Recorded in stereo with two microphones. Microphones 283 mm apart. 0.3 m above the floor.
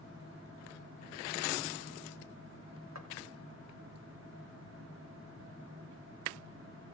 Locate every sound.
3.0 s footsteps: 65° right (ahead or behind), 3.5 m